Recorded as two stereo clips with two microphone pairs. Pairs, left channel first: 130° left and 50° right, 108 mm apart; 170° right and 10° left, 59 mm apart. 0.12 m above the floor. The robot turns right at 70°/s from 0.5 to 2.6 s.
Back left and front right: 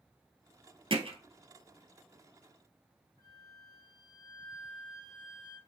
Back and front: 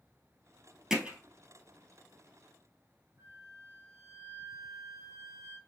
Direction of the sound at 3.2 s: 5° right.